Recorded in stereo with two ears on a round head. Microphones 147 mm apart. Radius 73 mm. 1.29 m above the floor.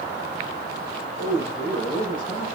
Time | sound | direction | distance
1.2 | a man speaking | 40° left (ahead or behind) | 5 m